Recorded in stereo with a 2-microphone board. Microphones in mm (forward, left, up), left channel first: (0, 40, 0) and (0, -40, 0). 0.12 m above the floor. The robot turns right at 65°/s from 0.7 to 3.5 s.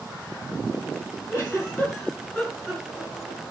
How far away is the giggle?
About 2 m.